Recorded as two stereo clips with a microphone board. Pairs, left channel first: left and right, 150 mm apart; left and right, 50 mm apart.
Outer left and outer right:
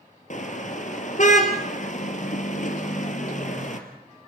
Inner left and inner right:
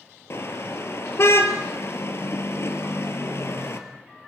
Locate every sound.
0.3 s a car horn: 55° left (ahead or behind), 2 m